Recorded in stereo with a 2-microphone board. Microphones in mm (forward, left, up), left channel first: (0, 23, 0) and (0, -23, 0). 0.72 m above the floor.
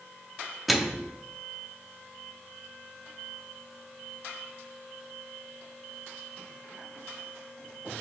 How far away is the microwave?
About 0.8 m.